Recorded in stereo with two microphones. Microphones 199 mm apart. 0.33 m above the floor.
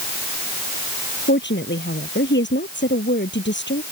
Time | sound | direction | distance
1.3 | a woman speaking | 65° left (ahead or behind) | ?